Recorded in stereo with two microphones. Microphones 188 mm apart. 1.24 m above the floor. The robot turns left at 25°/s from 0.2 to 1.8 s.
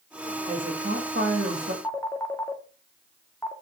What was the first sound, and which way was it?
A woman speaking, 45° right.